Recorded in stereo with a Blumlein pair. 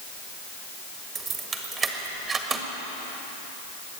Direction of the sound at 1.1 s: 20° right.